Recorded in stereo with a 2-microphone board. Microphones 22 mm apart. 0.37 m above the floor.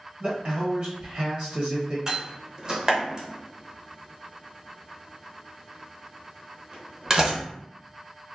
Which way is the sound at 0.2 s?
50° right (ahead or behind).